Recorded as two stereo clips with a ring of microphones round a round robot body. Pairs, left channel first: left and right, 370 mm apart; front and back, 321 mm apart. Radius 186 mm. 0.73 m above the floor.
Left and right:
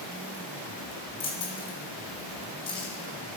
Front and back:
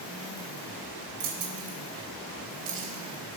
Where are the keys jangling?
165° left, 3 m.